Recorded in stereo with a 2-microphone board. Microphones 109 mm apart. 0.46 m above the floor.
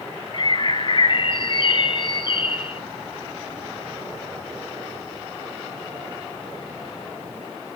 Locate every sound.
0.3 s a bird: 45° left (ahead or behind), 0.5 m